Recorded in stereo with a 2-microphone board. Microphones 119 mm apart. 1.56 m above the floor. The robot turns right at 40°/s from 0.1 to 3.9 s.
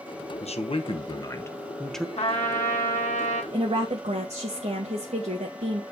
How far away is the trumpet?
About 2.5 m.